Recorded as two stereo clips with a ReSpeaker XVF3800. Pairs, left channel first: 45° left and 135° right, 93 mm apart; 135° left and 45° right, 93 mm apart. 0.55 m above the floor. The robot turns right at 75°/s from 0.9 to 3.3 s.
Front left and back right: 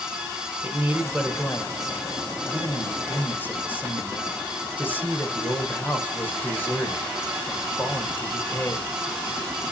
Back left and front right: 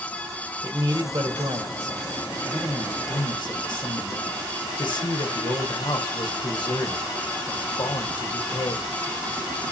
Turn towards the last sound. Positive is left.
turn(degrees=110)